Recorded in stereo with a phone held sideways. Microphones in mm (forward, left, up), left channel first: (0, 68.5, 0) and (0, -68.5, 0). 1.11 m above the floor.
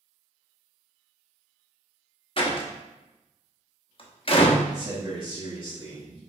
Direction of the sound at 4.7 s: 35° right (ahead or behind).